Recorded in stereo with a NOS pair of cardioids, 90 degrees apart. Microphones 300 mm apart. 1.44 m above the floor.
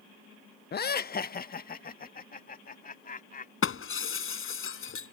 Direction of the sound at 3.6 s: 45° left.